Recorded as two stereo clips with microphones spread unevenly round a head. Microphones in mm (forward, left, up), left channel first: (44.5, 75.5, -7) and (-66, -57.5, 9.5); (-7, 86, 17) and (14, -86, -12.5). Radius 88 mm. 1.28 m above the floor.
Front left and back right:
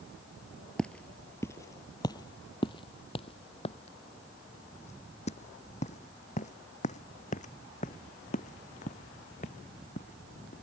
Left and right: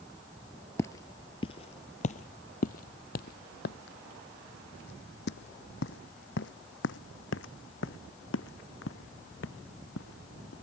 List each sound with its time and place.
0.8 s footsteps: 140° left; by 10.5 s 100° left